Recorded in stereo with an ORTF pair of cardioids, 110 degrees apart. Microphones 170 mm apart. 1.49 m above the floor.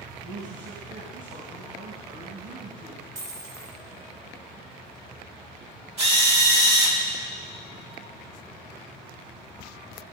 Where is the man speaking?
50° right, 3 m.